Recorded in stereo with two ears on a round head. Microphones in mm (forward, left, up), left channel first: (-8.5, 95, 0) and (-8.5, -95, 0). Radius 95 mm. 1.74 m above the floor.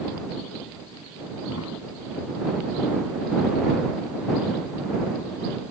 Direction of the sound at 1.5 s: 75° left (ahead or behind).